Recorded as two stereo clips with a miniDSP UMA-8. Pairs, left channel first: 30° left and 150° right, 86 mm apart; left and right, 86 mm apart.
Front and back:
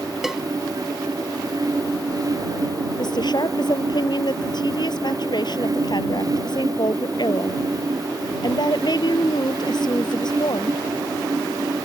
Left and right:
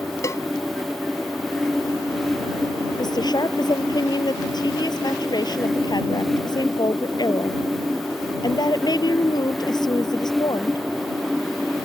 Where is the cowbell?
125° left.